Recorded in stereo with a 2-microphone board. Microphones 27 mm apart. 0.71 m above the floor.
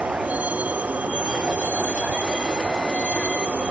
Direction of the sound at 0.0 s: 70° right (ahead or behind).